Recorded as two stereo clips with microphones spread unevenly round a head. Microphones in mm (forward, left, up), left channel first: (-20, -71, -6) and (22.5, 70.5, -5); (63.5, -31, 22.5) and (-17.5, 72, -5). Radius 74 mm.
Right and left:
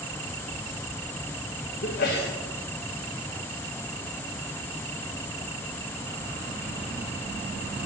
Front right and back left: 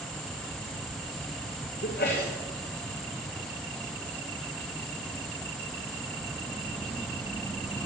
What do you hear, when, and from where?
1.8 s a sneeze: 85° right, 1.8 m